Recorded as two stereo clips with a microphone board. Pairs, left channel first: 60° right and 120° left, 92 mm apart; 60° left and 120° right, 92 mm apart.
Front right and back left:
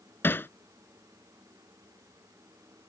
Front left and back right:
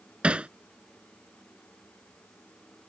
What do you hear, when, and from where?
0.2 s hammering: 60° right